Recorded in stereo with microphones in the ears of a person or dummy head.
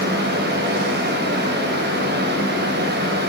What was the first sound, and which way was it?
A fan, 65° right (ahead or behind).